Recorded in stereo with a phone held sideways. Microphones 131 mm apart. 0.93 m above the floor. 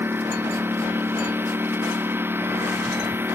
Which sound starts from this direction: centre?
A lawn mower, at 0.0 s.